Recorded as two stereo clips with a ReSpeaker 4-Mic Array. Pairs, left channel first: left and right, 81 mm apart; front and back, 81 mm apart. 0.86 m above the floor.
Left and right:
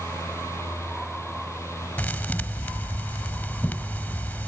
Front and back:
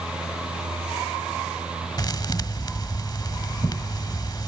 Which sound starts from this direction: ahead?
A thud, at 2.0 s.